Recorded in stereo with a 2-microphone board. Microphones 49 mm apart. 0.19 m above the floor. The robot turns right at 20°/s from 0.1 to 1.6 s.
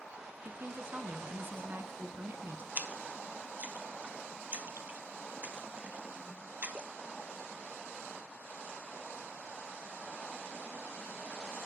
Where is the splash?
35° right (ahead or behind), 0.8 m.